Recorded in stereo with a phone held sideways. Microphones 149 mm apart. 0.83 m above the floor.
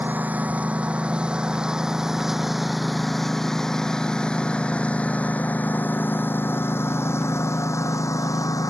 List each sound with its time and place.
0.0 s a lawn mower: 10° right (ahead or behind); by 8.7 s 25° left (ahead or behind)